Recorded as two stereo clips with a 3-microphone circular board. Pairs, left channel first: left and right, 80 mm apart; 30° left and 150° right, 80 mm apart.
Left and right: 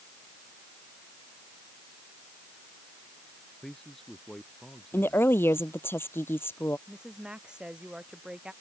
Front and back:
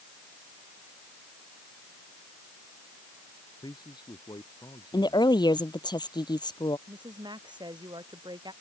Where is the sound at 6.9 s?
170° right.